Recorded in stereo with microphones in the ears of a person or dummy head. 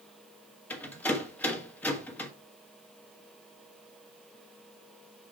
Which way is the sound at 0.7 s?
10° left (ahead or behind).